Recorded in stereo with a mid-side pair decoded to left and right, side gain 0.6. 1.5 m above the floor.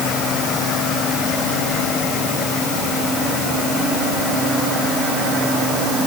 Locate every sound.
Only background noise.